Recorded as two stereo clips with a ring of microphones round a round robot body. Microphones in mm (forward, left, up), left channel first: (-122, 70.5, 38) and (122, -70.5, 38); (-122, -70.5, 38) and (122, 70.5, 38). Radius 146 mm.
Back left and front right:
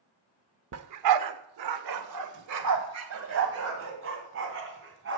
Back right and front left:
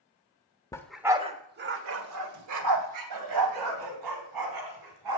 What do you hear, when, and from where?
0.7 s a dog barking: 70° right, 0.8 m; by 5.2 s 20° left, 3 m